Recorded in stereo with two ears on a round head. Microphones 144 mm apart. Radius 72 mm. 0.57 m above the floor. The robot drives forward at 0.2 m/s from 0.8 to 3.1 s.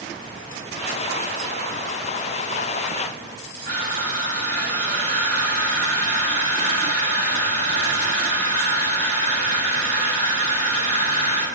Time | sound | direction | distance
3.6 | crushing | 50° left (ahead or behind) | 1.9 m